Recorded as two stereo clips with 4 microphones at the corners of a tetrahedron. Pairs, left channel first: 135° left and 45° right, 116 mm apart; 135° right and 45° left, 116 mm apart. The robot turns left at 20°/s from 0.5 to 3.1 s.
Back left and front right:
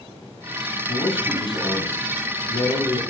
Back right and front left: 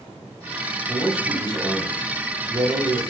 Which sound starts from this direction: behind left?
A man speaking, at 0.9 s.